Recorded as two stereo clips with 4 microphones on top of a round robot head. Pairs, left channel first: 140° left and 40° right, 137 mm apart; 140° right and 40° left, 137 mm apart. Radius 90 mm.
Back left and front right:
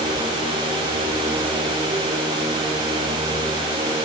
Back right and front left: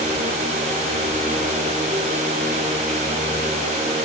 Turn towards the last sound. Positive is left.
No sound to turn to.